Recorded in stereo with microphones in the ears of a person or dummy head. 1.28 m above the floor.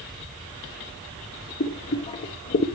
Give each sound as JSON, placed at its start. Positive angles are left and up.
{"t": 1.6, "sound": "boiling", "side_deg": 30, "distance_m": 0.6}